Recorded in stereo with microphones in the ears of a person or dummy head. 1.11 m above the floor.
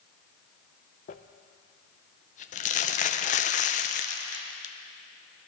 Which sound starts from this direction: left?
Crumpling, at 1.1 s.